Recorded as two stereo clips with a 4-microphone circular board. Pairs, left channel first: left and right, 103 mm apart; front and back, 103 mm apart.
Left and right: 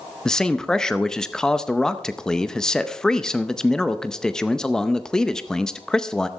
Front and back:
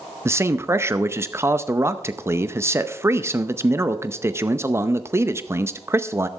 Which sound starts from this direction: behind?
A man speaking, at 0.2 s.